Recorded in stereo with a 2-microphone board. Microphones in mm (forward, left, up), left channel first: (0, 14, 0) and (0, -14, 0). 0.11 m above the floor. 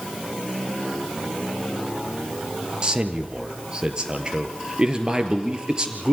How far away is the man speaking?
About 2.5 m.